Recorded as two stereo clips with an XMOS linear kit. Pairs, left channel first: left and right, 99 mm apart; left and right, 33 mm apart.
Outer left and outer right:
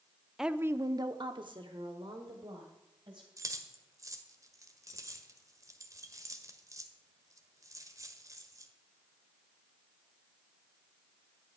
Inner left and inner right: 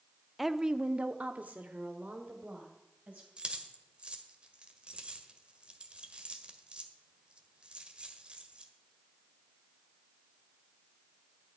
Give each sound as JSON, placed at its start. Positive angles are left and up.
{"t": 0.4, "sound": "a woman speaking", "side_deg": -5, "distance_m": 0.6}
{"t": 3.4, "sound": "keys jangling", "side_deg": -35, "distance_m": 1.5}